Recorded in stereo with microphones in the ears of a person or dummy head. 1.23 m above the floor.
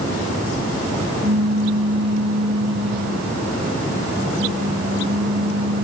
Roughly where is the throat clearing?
No throat clearing in this recording.